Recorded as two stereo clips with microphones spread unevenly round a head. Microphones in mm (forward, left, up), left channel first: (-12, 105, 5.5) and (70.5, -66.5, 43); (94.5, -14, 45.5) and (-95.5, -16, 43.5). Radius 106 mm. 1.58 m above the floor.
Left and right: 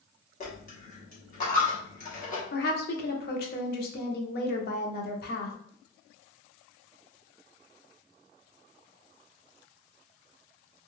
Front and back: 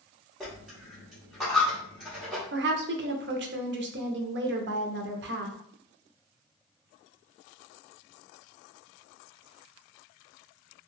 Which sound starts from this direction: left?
A dropped coin, at 0.4 s.